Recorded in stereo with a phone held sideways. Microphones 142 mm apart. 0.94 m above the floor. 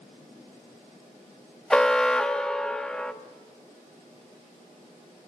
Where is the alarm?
5° left (ahead or behind), 1.2 m.